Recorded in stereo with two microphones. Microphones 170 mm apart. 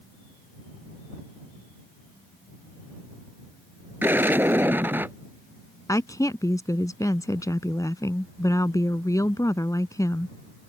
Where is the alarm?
No alarm in this recording.